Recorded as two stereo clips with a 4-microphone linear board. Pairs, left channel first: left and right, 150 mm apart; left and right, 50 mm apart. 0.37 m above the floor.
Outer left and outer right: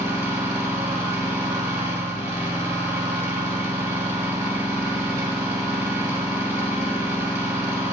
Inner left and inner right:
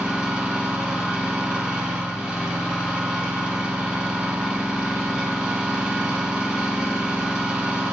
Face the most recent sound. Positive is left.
turn(degrees=-20)  # may be behind; listen again after turning